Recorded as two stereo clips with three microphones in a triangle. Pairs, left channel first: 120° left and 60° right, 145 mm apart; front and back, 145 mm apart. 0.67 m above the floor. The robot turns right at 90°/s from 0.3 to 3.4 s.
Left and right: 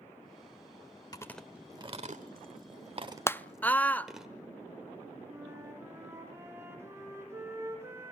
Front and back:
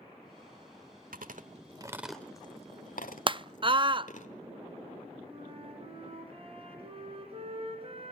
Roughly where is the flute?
Behind right.